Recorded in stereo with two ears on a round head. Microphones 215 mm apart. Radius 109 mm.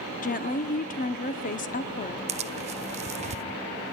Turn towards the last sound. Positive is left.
turn(degrees=-30)  # may be behind; listen again after turning